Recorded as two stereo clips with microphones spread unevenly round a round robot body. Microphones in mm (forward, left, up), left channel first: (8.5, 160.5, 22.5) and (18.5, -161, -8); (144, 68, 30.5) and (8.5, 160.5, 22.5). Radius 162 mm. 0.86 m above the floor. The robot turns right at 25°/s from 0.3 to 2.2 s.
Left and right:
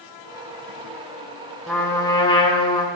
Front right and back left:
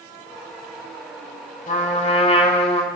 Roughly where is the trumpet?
Ahead.